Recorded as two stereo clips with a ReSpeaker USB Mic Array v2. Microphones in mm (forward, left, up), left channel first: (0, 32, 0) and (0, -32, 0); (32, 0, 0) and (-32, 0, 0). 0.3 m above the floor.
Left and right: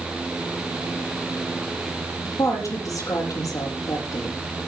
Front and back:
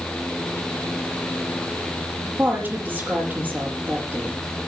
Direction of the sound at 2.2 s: 115° left.